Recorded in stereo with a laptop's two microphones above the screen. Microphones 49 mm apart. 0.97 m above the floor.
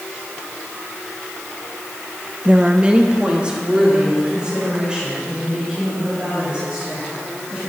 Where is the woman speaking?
20° right (ahead or behind), 0.5 m.